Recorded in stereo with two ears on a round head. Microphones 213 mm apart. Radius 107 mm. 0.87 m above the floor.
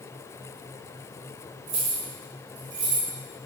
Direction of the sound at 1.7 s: 30° right (ahead or behind).